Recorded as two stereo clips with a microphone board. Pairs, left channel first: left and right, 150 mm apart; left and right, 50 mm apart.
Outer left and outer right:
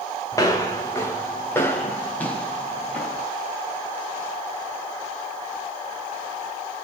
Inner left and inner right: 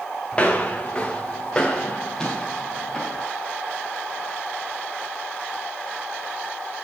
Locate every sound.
0.3 s footsteps: 25° left (ahead or behind), 2.5 m; by 3.2 s 10° left (ahead or behind), 3.5 m